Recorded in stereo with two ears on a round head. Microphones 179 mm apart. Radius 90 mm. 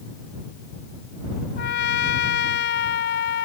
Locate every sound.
1.6 s a trumpet: 60° left (ahead or behind)